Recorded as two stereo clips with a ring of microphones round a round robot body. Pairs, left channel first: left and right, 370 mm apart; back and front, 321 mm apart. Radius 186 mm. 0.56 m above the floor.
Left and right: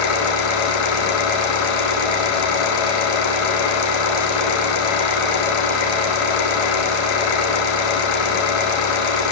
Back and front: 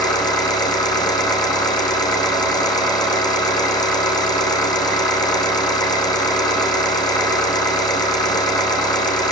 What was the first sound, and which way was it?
An engine running, 100° left.